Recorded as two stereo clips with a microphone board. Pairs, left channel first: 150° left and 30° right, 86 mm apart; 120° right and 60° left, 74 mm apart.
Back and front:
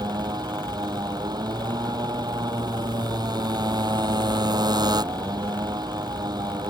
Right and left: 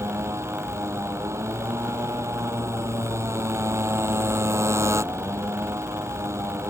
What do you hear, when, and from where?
0.0 s a motorcycle: 10° left